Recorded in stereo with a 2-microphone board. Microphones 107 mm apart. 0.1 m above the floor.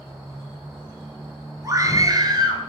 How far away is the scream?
About 1.7 m.